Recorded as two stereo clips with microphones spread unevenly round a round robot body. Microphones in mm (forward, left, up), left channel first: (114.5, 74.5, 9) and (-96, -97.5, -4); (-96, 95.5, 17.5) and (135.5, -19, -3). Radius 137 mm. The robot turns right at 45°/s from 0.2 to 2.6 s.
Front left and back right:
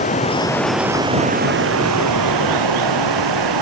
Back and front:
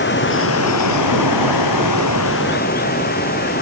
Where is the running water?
105° left; by 3.6 s 145° right.